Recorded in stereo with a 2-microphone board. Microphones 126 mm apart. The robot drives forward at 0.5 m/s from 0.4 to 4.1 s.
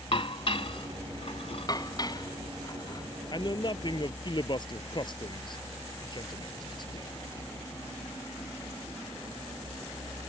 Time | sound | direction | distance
0.1 | dishes clattering | 50° left (ahead or behind) | ?
1.7 | dishes clattering | 30° left (ahead or behind) | ?
3.3 | a man speaking | 35° left (ahead or behind) | ?